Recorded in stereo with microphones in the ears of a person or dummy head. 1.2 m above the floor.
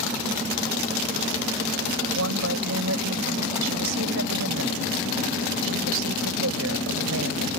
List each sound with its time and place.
2.1 s a woman speaking: 75° right (ahead or behind)